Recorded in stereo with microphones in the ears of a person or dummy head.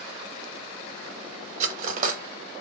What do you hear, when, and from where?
1.6 s cutlery clinking: 45° right (ahead or behind), 0.8 m